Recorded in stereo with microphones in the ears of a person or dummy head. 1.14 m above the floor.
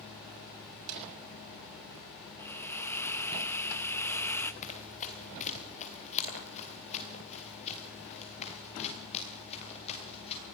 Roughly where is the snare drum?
Right.